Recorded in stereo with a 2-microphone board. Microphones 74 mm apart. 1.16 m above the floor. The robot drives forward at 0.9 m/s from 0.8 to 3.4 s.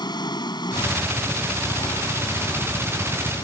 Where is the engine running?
85° left; by 3.5 s 80° left.